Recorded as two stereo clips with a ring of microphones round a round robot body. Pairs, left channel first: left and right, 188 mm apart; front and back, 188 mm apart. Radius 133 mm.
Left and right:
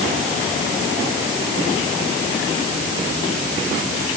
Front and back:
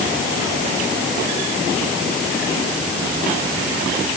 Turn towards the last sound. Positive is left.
No sound to turn to.